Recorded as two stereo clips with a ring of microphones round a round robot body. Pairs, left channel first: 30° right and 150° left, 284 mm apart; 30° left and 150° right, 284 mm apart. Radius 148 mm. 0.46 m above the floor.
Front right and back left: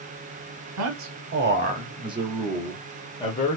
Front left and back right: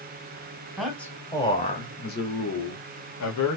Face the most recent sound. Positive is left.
turn(degrees=35)